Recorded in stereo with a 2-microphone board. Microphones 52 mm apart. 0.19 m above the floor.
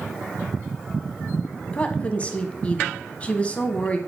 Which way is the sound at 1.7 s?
25° left (ahead or behind).